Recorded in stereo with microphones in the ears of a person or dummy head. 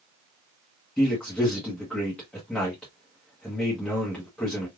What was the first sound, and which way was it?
A man speaking, 10° left (ahead or behind).